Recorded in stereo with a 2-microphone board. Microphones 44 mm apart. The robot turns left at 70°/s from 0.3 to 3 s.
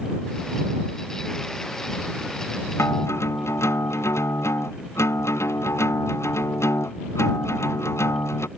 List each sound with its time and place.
2.8 s a guitar: 80° left; by 8.5 s 85° left